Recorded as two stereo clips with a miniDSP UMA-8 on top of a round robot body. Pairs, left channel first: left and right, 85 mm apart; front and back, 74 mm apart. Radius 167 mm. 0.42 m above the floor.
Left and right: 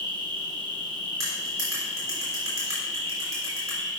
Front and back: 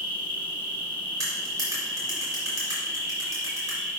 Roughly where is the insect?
Behind right.